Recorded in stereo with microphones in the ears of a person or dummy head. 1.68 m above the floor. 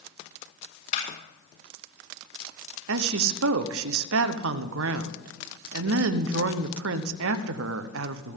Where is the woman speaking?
75° right (ahead or behind), 1.0 m.